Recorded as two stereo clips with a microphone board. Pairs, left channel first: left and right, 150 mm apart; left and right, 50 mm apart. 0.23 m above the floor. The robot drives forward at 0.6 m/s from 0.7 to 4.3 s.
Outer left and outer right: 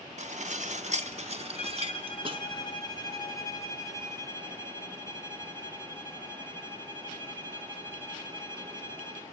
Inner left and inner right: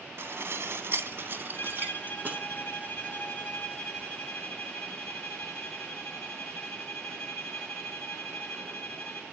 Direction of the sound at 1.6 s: 45° left (ahead or behind).